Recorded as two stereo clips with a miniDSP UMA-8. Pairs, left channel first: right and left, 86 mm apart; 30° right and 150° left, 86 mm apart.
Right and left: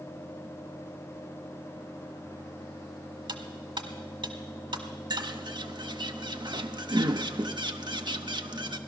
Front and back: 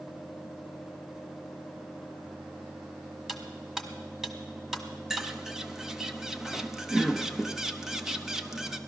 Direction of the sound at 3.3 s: 65° left.